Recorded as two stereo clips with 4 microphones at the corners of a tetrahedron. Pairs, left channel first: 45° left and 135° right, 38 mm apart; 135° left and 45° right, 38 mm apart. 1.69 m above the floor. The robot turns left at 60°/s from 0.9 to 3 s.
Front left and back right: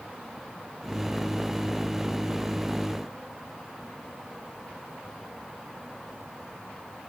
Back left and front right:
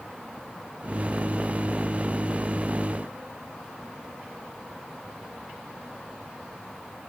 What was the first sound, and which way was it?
Only background noise.